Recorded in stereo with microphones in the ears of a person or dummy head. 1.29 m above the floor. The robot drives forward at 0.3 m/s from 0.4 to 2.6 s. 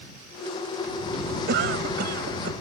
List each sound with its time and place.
1.5 s a cough: 65° right (ahead or behind)